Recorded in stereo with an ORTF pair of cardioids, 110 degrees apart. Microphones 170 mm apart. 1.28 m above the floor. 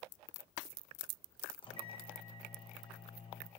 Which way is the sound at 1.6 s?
30° left.